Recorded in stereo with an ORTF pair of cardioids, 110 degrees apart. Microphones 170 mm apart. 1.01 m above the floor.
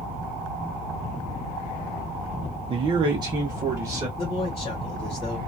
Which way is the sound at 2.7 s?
35° right.